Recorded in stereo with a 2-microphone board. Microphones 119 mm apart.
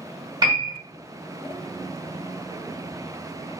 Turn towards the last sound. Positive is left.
turn(degrees=-35)  # may be behind; listen again after turning